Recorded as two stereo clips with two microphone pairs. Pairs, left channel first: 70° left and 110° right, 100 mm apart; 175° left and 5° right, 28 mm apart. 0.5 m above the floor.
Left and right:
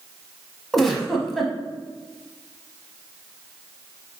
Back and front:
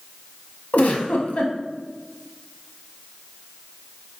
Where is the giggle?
160° left, 0.7 m.